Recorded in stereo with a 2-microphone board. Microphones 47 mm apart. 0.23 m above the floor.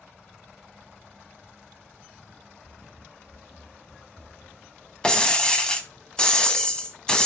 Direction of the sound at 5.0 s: 20° left (ahead or behind).